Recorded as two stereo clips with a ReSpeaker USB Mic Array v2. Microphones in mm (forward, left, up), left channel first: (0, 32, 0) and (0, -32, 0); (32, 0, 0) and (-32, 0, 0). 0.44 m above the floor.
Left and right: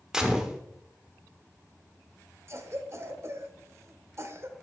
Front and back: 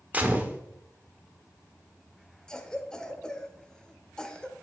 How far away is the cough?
About 1.0 m.